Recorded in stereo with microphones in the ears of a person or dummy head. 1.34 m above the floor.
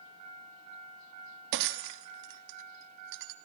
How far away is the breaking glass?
About 1.2 m.